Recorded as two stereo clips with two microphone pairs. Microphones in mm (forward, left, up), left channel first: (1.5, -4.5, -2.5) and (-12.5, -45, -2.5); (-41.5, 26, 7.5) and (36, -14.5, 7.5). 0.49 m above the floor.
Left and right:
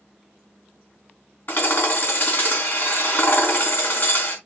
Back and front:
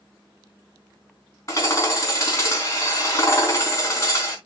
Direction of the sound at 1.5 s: 100° left.